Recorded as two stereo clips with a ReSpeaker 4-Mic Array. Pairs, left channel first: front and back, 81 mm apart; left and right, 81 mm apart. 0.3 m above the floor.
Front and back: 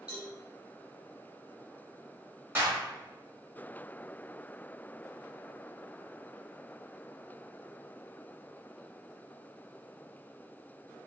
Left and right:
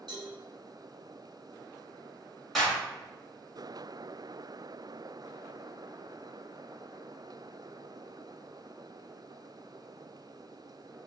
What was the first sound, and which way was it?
A cowbell, 105° right.